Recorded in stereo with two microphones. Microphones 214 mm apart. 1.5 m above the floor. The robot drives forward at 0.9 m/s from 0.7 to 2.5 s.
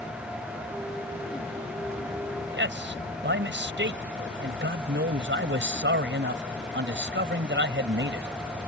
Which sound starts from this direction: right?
A man speaking, at 2.5 s.